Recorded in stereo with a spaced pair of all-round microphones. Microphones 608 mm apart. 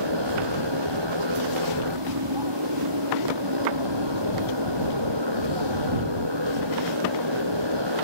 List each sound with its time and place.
0.0 s a motorcycle: 45° right (ahead or behind)